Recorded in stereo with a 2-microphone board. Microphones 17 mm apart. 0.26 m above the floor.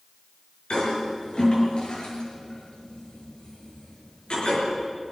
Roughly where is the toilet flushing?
Left.